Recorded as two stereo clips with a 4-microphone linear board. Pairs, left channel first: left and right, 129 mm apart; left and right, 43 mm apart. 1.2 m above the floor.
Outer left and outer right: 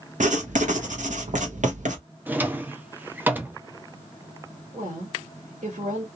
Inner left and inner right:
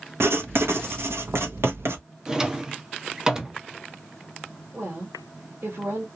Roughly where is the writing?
Right.